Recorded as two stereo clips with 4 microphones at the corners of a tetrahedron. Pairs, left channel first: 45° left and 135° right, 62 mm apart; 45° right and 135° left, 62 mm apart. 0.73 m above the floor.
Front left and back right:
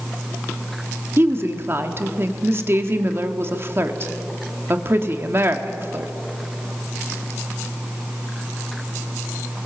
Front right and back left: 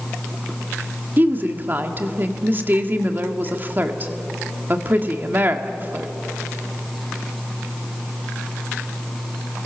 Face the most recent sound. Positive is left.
turn(degrees=-175)